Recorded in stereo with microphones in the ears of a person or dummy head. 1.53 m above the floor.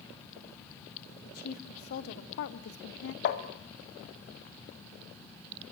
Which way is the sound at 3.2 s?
60° left (ahead or behind).